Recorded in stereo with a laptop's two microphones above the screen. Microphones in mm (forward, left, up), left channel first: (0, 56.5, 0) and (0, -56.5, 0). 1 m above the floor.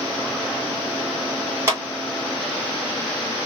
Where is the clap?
25° right (ahead or behind), 2.5 m.